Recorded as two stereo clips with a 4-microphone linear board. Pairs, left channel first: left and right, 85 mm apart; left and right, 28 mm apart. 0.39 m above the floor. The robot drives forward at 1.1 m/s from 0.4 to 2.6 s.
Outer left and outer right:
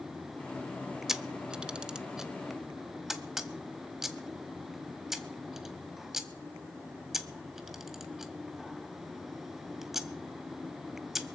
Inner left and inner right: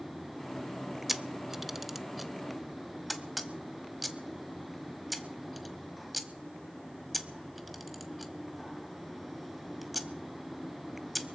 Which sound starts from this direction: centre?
A camera shutter, at 1.1 s.